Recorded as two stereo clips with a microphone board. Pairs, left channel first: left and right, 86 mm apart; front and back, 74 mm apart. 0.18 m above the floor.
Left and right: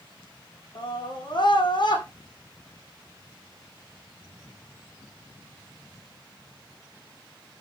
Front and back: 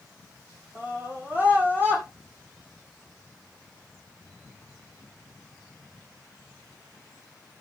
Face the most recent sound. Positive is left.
turn(degrees=115)